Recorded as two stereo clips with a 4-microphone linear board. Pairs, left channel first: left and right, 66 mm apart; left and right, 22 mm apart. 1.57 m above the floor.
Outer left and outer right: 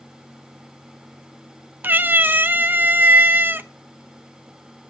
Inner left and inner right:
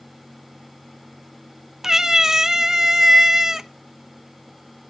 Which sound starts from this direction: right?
A cat meowing, at 1.8 s.